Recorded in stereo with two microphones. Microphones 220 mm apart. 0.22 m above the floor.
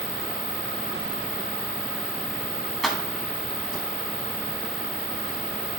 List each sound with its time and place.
2.8 s keys jangling: centre (ahead or behind), 1.4 m; by 3.9 s 20° right (ahead or behind), 1.1 m